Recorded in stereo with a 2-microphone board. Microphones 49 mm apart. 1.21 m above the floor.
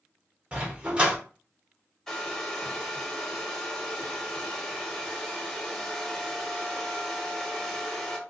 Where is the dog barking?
25° right (ahead or behind), 1.3 m.